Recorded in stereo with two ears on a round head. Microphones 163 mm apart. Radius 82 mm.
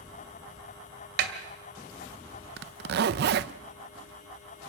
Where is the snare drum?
65° right (ahead or behind), 2 m.